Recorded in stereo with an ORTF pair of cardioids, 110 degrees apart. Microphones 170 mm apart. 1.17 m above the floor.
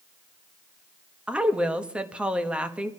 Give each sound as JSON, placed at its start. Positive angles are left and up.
{"t": 1.3, "sound": "a woman speaking", "azimuth_deg": -5, "distance_m": 1.2}